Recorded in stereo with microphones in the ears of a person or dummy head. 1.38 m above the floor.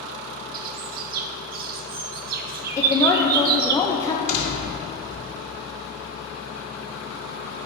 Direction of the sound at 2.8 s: 20° left (ahead or behind).